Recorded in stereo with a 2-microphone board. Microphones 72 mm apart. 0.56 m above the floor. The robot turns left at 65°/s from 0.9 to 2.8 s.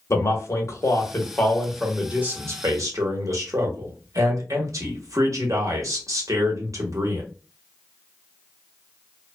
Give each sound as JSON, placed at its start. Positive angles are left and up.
{"t": 0.1, "sound": "a man speaking", "azimuth_deg": 55, "distance_m": 1.0}